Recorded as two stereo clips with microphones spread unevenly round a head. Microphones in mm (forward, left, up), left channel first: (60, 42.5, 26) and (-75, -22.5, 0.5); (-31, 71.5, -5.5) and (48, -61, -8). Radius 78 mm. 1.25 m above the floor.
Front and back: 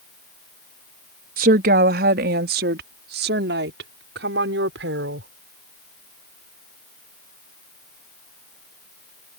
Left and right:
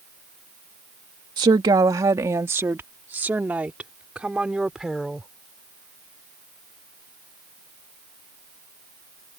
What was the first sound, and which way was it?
A woman speaking, 125° right.